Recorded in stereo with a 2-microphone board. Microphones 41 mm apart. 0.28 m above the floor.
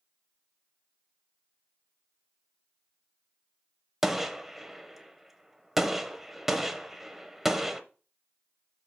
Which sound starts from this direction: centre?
A gunshot, at 4.0 s.